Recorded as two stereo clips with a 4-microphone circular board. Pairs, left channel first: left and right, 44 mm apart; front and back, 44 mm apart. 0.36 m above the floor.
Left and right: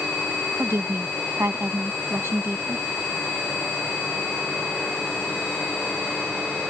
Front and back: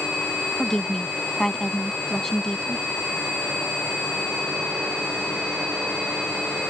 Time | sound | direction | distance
0.6 | a woman speaking | 80° right | ?